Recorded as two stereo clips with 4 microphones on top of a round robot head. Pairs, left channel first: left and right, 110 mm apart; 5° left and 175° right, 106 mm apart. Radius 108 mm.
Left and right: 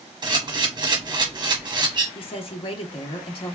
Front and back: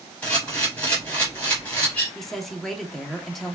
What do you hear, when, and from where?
0.2 s a camera shutter: 65° right, 1.3 m
2.1 s a woman speaking: 90° left, 0.9 m